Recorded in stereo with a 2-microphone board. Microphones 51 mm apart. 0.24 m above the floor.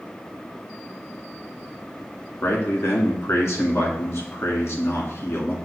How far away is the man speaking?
About 2.5 m.